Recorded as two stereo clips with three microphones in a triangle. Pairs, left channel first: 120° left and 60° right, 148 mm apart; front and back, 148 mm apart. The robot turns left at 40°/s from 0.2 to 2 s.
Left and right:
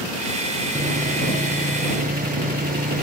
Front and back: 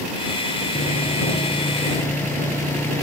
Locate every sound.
0.8 s sawing: 25° right; by 3.0 s 75° right